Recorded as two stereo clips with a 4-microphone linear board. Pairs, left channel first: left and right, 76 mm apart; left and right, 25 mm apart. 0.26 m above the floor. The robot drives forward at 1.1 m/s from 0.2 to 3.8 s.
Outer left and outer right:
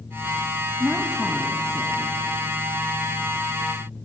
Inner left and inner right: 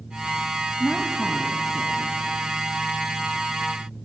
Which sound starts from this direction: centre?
A woman speaking, at 0.8 s.